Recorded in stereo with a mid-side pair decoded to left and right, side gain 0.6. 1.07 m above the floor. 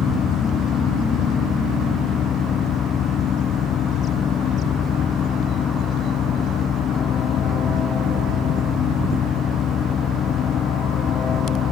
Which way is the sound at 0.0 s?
45° left.